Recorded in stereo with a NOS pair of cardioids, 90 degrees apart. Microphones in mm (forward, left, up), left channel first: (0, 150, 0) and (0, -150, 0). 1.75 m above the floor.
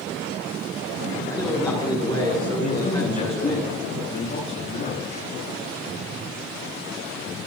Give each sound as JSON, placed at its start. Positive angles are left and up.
{"t": 1.3, "sound": "a man speaking", "azimuth_deg": 15, "distance_m": 6.5}
{"t": 2.6, "sound": "a man speaking", "azimuth_deg": 35, "distance_m": 9.0}